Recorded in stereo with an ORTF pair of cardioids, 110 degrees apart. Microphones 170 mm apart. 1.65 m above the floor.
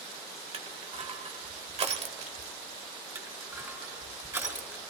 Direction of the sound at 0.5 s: 40° right.